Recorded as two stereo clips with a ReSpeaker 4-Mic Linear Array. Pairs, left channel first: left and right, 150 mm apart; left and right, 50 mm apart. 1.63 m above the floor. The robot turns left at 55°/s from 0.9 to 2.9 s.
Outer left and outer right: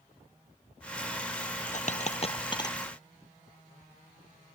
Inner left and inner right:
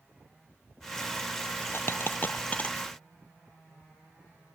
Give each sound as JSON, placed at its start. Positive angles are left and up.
{"t": 1.7, "sound": "a dropped coin", "side_deg": 55}